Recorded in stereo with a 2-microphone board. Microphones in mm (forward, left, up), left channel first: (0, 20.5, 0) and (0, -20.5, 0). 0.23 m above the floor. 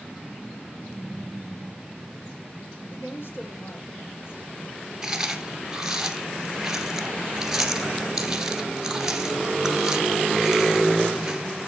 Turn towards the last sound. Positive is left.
turn(degrees=-10)  # may be behind; listen again after turning